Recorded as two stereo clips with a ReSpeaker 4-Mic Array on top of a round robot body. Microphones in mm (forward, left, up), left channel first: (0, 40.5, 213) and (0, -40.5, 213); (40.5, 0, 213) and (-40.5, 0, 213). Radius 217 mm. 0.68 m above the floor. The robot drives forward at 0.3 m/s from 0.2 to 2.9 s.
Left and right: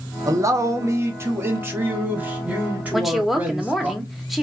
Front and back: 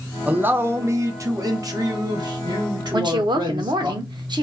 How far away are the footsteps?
I don't hear footsteps.